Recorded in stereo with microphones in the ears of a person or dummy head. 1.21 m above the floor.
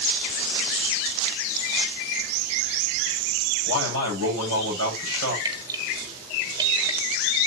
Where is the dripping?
20° right (ahead or behind), 1.6 m.